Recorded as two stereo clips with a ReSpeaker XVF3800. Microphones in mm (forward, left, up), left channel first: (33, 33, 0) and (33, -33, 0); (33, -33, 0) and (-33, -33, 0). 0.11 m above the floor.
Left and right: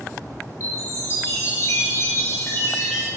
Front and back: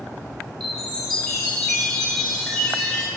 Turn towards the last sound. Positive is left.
turn(degrees=85)